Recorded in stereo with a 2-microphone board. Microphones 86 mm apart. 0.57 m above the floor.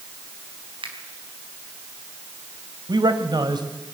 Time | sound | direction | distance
0.8 | a finger snap | 80° right | 4 m
2.9 | a man speaking | 55° right (ahead or behind) | 2.5 m